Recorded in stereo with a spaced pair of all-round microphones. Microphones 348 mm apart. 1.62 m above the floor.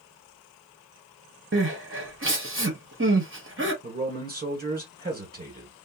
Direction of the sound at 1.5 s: 35° right (ahead or behind).